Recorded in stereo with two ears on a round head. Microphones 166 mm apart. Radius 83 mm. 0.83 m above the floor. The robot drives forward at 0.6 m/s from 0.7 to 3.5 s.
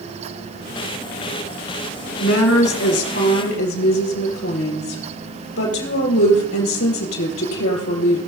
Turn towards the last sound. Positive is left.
turn(degrees=80)